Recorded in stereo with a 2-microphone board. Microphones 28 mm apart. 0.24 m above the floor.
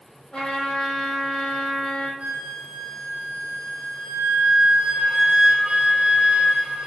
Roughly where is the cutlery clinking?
No cutlery clinking in this recording.